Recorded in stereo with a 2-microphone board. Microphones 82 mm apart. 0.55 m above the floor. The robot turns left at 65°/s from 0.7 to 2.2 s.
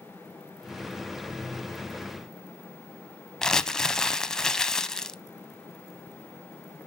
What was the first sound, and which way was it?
Crumpling, 5° left (ahead or behind).